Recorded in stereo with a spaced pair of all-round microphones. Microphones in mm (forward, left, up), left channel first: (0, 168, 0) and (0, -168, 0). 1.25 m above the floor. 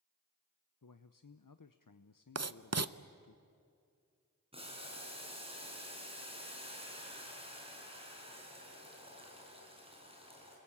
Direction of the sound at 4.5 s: 15° right (ahead or behind).